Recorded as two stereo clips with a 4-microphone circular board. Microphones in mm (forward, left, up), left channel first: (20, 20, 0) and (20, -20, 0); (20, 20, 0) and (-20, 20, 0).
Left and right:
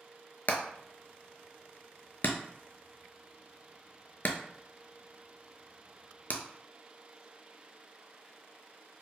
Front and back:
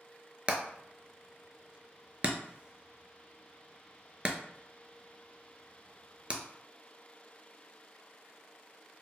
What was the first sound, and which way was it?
Hammering, 125° left.